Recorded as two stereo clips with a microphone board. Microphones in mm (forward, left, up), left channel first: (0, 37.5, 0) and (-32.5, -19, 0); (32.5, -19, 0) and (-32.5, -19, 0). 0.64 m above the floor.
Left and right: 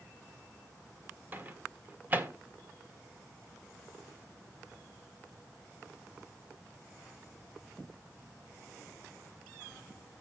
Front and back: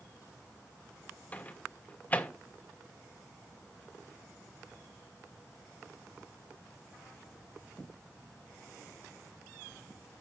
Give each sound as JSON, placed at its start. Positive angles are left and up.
{"t": 1.3, "sound": "a microwave", "azimuth_deg": -60, "distance_m": 1.8}